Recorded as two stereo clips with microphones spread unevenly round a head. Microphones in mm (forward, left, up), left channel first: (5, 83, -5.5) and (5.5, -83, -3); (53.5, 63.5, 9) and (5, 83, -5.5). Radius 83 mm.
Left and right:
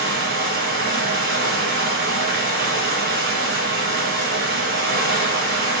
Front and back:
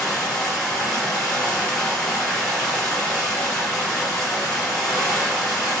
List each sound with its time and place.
0.0 s running water: 70° right, 1.9 m